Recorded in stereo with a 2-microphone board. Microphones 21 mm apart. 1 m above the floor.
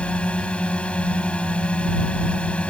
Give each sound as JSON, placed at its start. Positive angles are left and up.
{"t": 0.0, "sound": "a drone", "side_deg": 65}